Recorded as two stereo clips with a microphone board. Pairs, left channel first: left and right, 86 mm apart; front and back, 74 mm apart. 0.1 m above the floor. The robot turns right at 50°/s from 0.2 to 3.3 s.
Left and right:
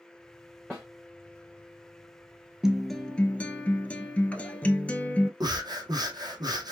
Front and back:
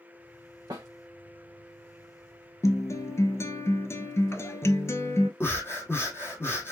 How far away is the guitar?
About 0.6 m.